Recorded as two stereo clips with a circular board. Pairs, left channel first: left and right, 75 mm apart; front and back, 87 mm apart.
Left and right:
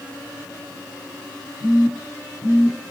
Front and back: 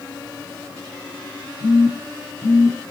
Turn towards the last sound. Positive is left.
turn(degrees=50)